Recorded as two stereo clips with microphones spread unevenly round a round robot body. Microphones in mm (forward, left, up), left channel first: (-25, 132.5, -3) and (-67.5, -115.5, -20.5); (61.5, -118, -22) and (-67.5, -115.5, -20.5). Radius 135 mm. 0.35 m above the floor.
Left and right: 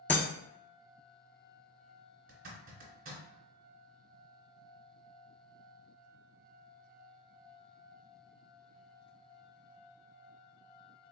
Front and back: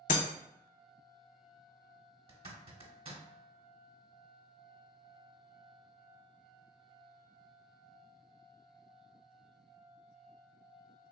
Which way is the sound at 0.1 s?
Straight ahead.